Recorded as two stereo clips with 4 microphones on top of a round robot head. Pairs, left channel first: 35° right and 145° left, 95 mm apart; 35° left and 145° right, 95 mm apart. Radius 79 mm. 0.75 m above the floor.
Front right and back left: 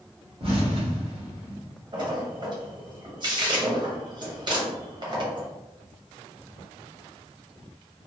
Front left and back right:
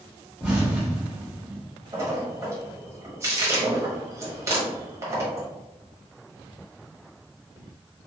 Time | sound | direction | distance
0.4 | an explosion | 135° left | 1.7 m
1.9 | a splash | 160° left | 1.5 m